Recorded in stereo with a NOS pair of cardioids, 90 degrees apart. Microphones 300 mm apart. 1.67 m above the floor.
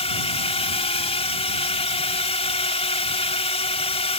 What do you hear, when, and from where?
0.0 s a drone: 20° left